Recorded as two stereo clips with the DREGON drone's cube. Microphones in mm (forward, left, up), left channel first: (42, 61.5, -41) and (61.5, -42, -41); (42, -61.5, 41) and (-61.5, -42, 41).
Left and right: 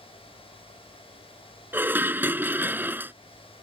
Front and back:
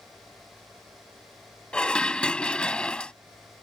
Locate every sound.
1.7 s dishes clattering: 75° right